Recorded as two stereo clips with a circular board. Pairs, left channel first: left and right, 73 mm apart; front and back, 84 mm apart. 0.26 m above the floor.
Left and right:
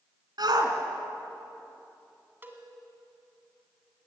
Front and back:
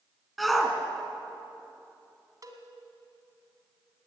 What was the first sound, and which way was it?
A shout, 90° right.